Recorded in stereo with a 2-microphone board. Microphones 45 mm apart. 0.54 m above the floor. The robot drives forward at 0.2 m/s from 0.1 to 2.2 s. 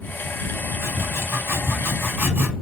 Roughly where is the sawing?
Right.